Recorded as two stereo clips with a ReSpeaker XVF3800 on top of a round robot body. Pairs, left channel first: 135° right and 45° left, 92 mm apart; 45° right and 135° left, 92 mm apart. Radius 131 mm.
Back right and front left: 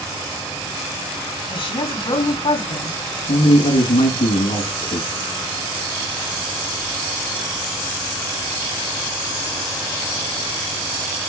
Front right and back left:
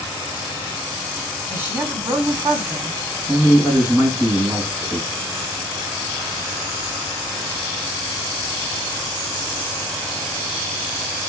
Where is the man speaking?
140° right, 6 m.